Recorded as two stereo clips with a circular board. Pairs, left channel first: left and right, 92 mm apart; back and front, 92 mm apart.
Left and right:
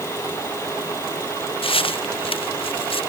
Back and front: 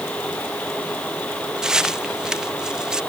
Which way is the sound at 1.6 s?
80° left.